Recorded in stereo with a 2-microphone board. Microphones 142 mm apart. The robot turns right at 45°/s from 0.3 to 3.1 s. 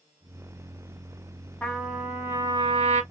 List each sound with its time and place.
1.6 s a trumpet: 170° left, 1.1 m; by 3.0 s 130° right, 1.1 m